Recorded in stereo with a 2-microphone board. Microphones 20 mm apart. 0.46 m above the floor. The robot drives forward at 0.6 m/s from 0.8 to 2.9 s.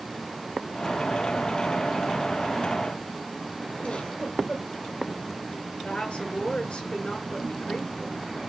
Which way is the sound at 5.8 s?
80° left.